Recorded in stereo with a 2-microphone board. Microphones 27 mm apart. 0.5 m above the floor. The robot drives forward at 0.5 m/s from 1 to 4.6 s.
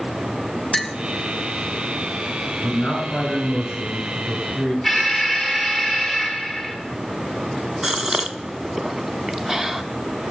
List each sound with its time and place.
0.7 s a clink: 10° left (ahead or behind), 0.5 m
2.6 s a man speaking: 55° left (ahead or behind), 6.5 m; by 4.7 s 50° left (ahead or behind), 7 m
4.8 s an alarm: centre (ahead or behind), 1.7 m
7.8 s a gasp: 20° right (ahead or behind), 0.6 m